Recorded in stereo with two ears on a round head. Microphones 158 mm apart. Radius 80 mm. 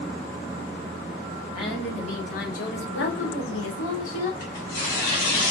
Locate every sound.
1.6 s a woman speaking: 30° left (ahead or behind), 1.0 m; by 4.3 s 75° left (ahead or behind), 1.3 m
4.4 s tearing paper: 60° left (ahead or behind), 1.5 m